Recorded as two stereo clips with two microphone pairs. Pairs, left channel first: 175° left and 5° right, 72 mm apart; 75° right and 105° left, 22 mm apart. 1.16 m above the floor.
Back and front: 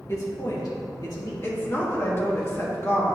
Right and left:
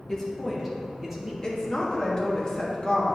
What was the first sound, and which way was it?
A man speaking, 140° right.